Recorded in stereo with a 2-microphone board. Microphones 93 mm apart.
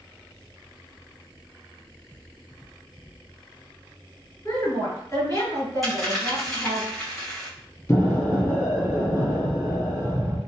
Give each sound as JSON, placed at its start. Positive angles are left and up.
{"t": 4.5, "sound": "a woman speaking", "side_deg": 35, "distance_m": 1.4}
{"t": 5.8, "sound": "a dropped coin", "side_deg": 0, "distance_m": 1.5}
{"t": 7.9, "sound": "an explosion", "side_deg": 30, "distance_m": 1.4}